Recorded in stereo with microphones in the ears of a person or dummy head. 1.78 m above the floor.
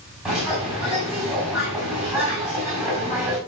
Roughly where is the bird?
Centre.